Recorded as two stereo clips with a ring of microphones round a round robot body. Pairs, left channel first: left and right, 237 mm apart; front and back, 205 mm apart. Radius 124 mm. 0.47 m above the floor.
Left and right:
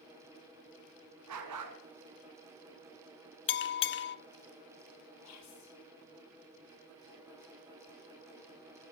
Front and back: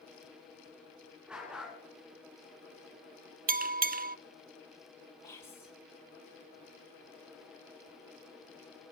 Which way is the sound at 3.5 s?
130° left.